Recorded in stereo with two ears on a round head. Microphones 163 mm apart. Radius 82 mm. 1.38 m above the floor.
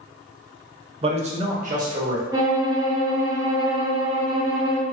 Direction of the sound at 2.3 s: 15° right (ahead or behind).